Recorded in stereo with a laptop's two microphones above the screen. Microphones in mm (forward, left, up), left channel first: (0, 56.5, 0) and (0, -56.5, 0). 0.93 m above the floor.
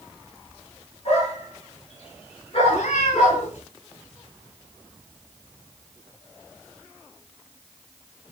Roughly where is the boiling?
No boiling in this recording.